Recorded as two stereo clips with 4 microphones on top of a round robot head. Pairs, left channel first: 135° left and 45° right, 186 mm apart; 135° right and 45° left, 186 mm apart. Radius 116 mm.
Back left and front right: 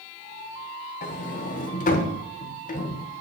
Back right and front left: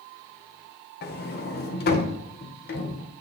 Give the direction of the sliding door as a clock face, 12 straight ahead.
6 o'clock.